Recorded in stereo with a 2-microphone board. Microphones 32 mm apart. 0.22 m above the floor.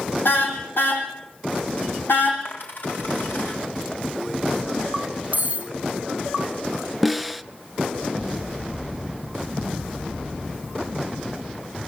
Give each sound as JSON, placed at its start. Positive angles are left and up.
{"t": 0.2, "sound": "a car horn", "side_deg": 80, "distance_m": 6.0}
{"t": 2.5, "sound": "a dropped coin", "side_deg": 70, "distance_m": 6.0}
{"t": 5.3, "sound": "cutlery clinking", "side_deg": -55, "distance_m": 1.7}
{"t": 7.0, "sound": "a snare drum", "side_deg": -5, "distance_m": 0.7}